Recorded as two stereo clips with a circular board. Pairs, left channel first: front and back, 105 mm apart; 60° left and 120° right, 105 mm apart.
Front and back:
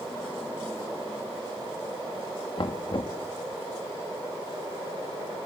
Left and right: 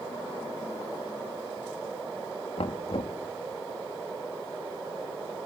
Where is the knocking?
40° left, 1.5 m.